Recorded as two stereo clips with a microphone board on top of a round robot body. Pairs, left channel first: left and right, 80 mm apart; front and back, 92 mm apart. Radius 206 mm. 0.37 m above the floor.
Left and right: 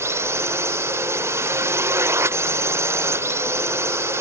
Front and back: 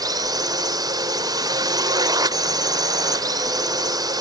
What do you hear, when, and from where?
0.0 s a drone: 140° right